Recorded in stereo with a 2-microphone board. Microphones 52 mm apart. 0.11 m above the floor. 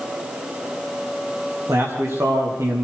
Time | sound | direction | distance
1.7 | a man speaking | 70° right (ahead or behind) | 8 m